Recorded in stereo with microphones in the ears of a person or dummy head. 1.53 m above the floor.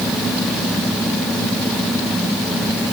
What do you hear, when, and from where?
Only background noise.